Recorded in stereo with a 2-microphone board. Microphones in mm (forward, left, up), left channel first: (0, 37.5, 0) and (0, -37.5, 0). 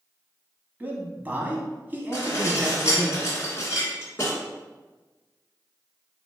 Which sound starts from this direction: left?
Dishes clattering, at 2.1 s.